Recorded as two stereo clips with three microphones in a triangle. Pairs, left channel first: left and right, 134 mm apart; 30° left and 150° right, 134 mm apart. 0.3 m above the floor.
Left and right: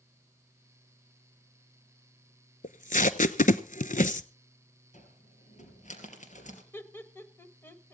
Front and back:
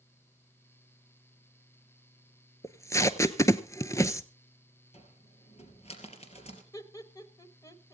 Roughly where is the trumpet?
I don't hear a trumpet.